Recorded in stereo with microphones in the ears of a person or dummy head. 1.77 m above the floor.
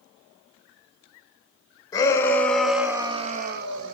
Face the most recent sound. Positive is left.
turn(degrees=-70)  # may be behind; listen again after turning